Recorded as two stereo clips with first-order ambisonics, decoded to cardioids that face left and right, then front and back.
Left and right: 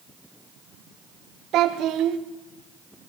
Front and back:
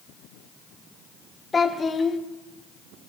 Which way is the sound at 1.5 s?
70° right.